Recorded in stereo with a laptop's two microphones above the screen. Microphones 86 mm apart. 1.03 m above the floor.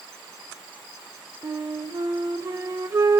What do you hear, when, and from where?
1.4 s a flute: 40° right (ahead or behind), 1.3 m